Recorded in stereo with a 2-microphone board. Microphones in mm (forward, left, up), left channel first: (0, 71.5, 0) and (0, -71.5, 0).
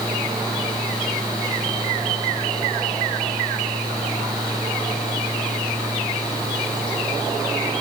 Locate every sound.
Only background noise.